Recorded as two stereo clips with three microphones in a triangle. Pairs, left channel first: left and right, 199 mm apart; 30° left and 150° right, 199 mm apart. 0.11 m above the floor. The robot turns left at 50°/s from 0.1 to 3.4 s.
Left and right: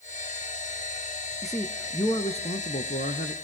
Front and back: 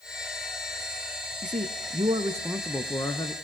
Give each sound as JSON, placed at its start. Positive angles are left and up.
{"t": 1.4, "sound": "a man speaking", "azimuth_deg": -175, "distance_m": 2.0}